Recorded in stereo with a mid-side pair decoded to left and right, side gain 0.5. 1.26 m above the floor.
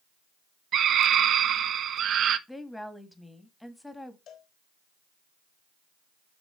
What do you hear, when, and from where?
0.7 s a scream: 60° right, 1.4 m
2.5 s a woman speaking: 10° left, 2 m
4.3 s a cowbell: 65° left, 4 m